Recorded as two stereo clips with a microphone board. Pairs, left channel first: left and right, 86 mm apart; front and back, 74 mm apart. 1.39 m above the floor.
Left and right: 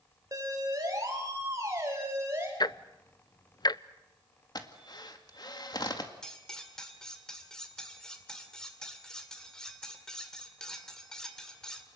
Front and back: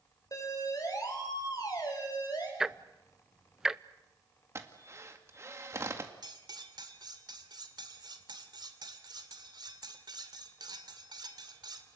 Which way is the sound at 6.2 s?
175° left.